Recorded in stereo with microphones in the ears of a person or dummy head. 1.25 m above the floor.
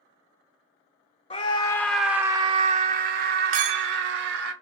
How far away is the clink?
About 0.7 m.